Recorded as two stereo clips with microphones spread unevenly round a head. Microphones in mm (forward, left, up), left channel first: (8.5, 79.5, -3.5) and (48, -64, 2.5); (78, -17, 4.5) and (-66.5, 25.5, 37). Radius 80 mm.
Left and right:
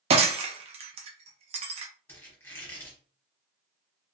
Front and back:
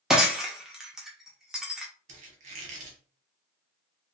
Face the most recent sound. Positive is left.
turn(degrees=180)